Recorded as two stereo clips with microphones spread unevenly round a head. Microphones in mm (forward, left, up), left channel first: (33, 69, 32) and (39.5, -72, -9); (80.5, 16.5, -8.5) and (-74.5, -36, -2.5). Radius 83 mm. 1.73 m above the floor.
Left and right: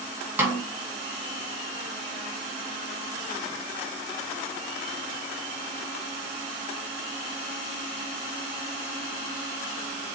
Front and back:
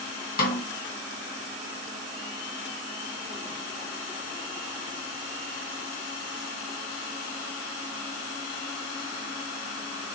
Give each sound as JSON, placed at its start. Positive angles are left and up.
{"t": 0.4, "sound": "a snare drum", "azimuth_deg": -5, "distance_m": 1.4}